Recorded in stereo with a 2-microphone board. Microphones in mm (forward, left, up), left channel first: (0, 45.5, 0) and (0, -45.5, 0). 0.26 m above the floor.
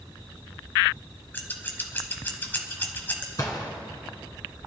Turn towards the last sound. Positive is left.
turn(degrees=40)  # may be behind; listen again after turning